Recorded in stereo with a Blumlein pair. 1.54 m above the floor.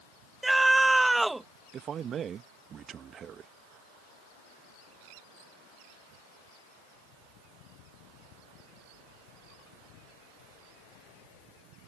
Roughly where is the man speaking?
Ahead right.